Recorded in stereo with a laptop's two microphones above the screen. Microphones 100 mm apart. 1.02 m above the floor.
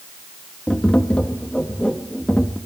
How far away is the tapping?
About 0.7 m.